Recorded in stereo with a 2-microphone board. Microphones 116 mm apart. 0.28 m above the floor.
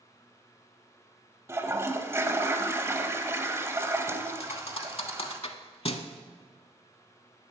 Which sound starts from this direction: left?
A thud, at 4.4 s.